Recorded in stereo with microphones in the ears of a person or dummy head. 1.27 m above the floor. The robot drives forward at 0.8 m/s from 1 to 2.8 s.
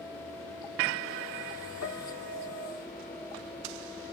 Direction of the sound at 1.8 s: 70° left (ahead or behind).